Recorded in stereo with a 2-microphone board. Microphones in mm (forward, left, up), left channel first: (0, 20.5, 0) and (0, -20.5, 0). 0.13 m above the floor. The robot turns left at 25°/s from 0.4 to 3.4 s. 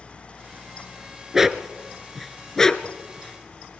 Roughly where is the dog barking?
Centre.